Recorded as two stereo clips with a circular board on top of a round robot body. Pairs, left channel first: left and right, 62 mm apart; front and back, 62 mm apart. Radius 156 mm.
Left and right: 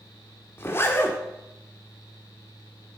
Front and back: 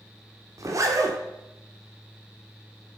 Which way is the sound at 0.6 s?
145° left.